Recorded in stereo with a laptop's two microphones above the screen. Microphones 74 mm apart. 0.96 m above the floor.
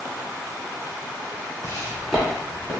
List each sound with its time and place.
1.6 s footsteps: 35° left (ahead or behind), 1.3 m; by 2.7 s 30° right (ahead or behind), 1.7 m